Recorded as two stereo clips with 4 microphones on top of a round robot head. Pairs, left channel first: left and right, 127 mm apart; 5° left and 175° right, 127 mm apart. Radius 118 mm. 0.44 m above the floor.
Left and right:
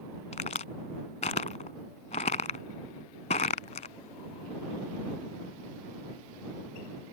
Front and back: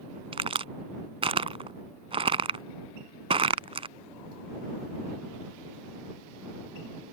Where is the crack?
135° left.